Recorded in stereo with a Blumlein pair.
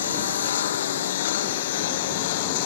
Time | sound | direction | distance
0.0 | a lawn mower | 60° left | ?